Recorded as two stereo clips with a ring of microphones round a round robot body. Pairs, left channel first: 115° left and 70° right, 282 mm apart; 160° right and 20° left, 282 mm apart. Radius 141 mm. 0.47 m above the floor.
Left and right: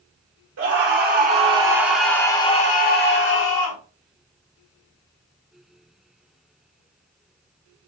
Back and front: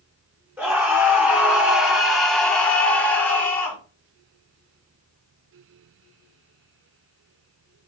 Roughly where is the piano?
I don't hear a piano.